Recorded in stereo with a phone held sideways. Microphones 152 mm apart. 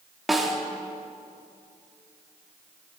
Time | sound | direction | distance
0.3 | a snare drum | centre (ahead or behind) | 2.5 m